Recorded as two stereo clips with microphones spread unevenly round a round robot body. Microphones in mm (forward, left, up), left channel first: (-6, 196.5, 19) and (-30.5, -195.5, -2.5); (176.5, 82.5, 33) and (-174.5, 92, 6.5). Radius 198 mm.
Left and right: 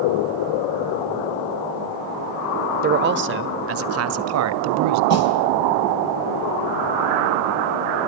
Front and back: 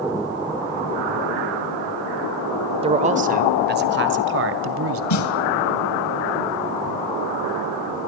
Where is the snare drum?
35° left, 3 m.